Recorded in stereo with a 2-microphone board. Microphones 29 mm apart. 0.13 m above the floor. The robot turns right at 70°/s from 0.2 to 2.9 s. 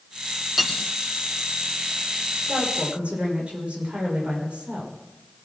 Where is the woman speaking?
70° right (ahead or behind), 10 m; by 5.0 s 40° right (ahead or behind), 10 m.